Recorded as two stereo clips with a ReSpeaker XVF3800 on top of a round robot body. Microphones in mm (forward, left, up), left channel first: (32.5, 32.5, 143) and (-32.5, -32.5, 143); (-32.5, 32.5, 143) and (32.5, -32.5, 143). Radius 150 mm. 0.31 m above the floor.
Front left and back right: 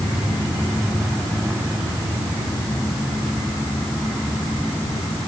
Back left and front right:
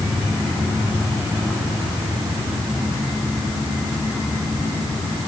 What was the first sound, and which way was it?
Only background noise.